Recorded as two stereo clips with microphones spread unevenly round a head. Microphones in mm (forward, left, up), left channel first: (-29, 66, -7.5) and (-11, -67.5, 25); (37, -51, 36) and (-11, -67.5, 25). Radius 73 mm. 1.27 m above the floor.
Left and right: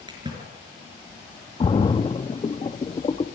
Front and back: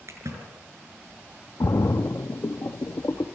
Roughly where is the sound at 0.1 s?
Behind right.